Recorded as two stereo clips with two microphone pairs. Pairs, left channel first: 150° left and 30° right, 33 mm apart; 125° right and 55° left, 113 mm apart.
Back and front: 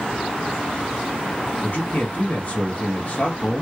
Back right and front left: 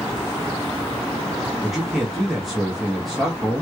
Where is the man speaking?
145° left, 0.9 m.